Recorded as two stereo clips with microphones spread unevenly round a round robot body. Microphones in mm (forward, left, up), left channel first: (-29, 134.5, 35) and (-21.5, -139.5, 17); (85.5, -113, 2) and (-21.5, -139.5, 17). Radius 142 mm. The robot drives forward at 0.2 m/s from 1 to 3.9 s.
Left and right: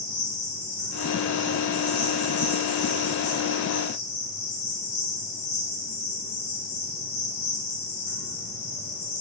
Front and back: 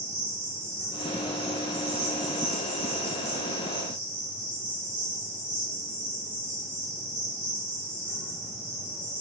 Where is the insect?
65° left, 1.1 m; by 9.2 s 95° left, 1.0 m.